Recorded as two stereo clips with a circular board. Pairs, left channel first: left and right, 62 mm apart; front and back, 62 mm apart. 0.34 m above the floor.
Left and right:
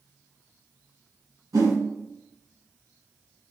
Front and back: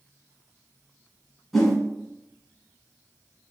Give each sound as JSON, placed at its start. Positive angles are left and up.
{"t": 1.5, "sound": "a whoosh", "azimuth_deg": -90, "distance_m": 1.6}